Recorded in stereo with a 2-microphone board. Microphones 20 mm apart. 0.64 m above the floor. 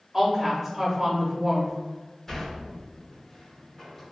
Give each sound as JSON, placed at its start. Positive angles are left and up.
{"t": 0.1, "sound": "a woman speaking", "side_deg": -15, "distance_m": 0.8}
{"t": 2.3, "sound": "a sliding door", "side_deg": 15, "distance_m": 1.1}